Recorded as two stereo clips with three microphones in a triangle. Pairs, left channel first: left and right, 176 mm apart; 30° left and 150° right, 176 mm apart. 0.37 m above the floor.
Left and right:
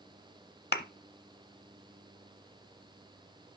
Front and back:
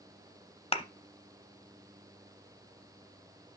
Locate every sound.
0.7 s a thud: 85° left, 0.6 m